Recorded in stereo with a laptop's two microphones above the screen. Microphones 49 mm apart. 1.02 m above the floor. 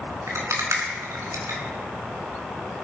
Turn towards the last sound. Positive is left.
turn(degrees=-80)